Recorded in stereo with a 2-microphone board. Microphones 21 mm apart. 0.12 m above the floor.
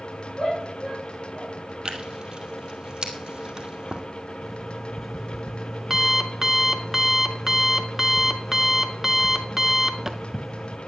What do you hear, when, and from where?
0.4 s a shout: 10° left (ahead or behind), 5.5 m
1.9 s tearing paper: 35° right (ahead or behind), 1.9 m
4.4 s an alarm clock: 15° right (ahead or behind), 0.7 m